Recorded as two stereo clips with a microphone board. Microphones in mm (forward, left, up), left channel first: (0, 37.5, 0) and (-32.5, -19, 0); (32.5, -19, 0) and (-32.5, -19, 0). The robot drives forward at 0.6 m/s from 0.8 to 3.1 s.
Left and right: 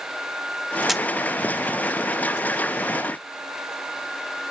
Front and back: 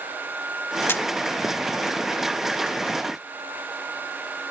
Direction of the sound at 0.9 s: 35° right.